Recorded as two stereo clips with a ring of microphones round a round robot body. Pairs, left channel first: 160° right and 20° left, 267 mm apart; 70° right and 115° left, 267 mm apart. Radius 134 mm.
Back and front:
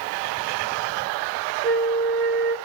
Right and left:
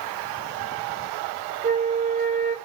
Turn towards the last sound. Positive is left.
turn(degrees=130)